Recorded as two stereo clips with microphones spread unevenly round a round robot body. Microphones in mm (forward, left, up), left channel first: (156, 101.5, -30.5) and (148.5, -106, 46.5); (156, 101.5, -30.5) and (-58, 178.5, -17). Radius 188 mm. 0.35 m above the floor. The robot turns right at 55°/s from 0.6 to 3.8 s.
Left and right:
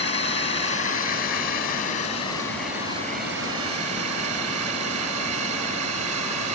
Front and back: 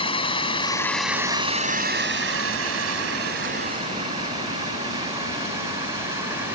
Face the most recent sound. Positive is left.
turn(degrees=-120)